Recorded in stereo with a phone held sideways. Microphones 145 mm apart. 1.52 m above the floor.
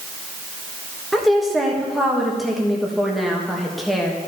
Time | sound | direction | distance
1.1 | a woman speaking | centre (ahead or behind) | 1.4 m